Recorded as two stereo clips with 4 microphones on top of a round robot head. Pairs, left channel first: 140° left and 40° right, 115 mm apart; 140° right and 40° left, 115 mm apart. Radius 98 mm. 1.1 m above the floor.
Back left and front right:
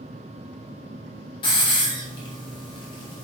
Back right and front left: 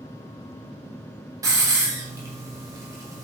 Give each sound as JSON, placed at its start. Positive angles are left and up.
{"t": 1.4, "sound": "a hiss", "azimuth_deg": 95, "distance_m": 0.8}